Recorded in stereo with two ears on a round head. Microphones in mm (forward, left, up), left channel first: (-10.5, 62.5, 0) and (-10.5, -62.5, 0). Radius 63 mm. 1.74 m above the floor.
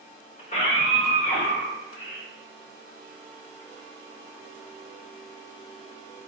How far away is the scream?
About 1.9 m.